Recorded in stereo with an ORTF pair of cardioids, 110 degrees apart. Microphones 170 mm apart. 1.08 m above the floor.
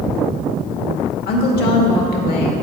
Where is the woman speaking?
65° left, 1.9 m.